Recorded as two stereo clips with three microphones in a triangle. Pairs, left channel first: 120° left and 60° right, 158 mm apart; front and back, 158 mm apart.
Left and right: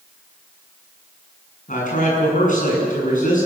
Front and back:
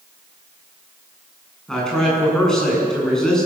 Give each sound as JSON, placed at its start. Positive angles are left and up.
{"t": 1.7, "sound": "a man speaking", "azimuth_deg": 85, "distance_m": 7.5}